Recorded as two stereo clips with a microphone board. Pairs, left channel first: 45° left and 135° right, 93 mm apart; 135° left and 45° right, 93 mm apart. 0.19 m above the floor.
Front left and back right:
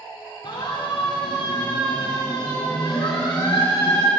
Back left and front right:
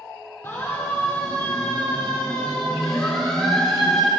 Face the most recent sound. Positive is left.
turn(degrees=45)